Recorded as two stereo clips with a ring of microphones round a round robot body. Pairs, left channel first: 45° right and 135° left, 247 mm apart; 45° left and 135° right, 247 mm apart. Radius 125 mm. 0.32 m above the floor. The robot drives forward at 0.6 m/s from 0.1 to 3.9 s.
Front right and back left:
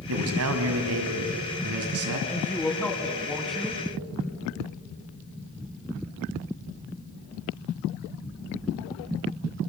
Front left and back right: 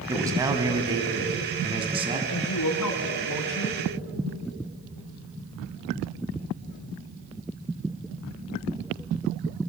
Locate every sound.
0.1 s a man speaking: 150° left, 3 m; by 2.2 s 160° left, 4 m
2.3 s a woman speaking: 35° left, 4 m; by 3.8 s 45° left, 3.5 m